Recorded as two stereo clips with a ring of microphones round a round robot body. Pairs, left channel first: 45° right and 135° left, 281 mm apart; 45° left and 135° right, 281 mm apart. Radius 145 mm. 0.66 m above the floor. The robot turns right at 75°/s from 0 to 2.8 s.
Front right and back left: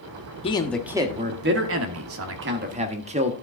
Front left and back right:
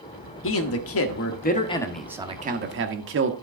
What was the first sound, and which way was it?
A man speaking, 20° left.